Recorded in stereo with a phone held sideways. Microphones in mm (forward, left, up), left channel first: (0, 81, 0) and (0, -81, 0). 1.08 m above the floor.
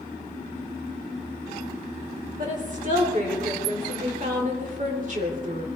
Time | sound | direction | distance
2.4 | a woman speaking | 55° right (ahead or behind) | 4 m